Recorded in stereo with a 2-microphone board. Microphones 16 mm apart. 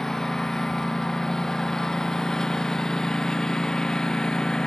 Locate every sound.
0.0 s a lawn mower: 30° left (ahead or behind); by 4.7 s 40° left (ahead or behind)